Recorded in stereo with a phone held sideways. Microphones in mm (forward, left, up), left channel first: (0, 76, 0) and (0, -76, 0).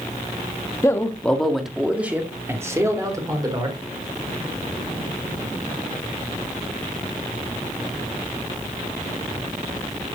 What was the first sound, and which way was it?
A man speaking, 20° left (ahead or behind).